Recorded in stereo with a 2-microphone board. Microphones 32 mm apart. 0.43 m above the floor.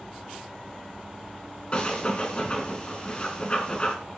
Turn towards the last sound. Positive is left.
turn(degrees=35)  # may be behind; listen again after turning